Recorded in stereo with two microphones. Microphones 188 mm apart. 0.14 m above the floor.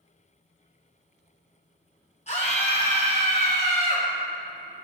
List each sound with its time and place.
2.3 s a scream: 35° left (ahead or behind), 2.0 m; by 4.1 s 40° left (ahead or behind), 2.5 m